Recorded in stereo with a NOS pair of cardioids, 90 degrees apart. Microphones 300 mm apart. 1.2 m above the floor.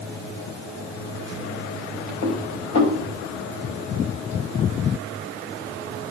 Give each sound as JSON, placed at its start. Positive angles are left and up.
{"t": 2.2, "sound": "dishes clattering", "azimuth_deg": 65, "distance_m": 5.5}